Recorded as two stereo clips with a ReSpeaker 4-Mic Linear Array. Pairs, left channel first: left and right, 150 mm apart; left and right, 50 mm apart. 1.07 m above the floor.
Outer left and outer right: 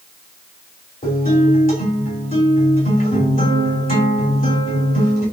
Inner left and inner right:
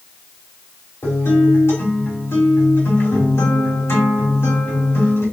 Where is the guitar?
65° left (ahead or behind), 3 m.